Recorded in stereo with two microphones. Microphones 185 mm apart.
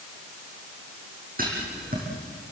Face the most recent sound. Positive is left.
turn(degrees=-50)  # may be behind; listen again after turning